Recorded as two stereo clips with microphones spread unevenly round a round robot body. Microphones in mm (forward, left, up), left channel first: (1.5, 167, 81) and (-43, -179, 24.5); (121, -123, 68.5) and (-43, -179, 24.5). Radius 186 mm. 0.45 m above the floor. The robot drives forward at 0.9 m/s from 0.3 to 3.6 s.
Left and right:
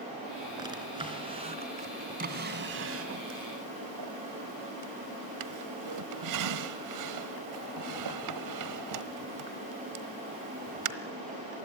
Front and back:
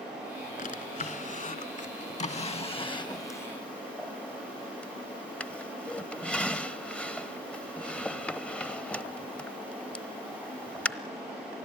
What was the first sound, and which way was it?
A drawer, 20° right.